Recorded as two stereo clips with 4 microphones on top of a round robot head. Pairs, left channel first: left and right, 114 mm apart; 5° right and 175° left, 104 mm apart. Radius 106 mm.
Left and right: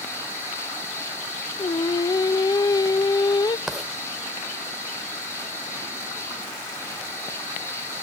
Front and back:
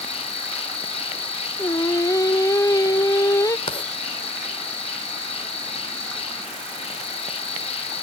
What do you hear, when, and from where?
0.0 s an insect: 15° left, 1.3 m
1.6 s singing: 45° left, 0.5 m
3.7 s writing: straight ahead, 0.6 m